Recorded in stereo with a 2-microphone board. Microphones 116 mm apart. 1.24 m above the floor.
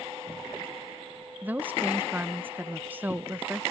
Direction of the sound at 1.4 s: 15° right (ahead or behind).